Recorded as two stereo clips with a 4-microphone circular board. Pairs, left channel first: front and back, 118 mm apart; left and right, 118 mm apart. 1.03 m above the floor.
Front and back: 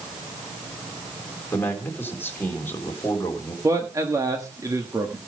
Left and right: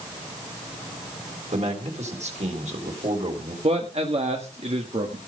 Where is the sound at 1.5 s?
70° right, 3.5 m.